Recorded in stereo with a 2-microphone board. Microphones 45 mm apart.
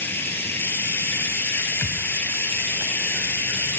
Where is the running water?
60° left (ahead or behind), 1.9 m.